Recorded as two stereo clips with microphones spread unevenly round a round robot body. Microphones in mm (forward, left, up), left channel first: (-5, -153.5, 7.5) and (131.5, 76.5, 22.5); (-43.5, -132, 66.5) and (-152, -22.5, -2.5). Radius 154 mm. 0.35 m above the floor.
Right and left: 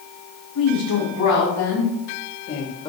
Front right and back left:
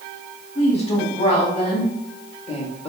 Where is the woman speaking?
105° right, 4.5 m; by 2.9 s 95° right, 1.4 m.